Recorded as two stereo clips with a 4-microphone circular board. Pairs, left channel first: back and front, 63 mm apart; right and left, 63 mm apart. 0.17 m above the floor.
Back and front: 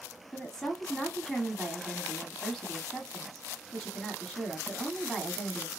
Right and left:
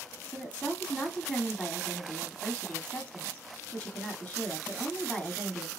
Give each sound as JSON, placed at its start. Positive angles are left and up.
{"t": 0.3, "sound": "a woman speaking", "azimuth_deg": -110, "distance_m": 1.3}